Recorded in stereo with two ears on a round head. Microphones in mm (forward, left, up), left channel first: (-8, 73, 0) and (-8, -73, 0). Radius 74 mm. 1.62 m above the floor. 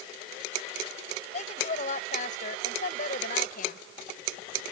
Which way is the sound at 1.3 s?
45° left (ahead or behind).